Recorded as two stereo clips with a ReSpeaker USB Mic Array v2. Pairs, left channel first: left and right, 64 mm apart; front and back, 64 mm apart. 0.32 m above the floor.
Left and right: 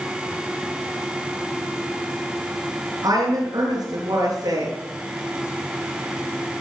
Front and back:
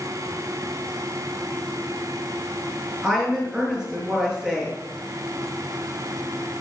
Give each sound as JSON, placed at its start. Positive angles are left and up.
{"t": 3.0, "sound": "a woman speaking", "azimuth_deg": -105, "distance_m": 6.5}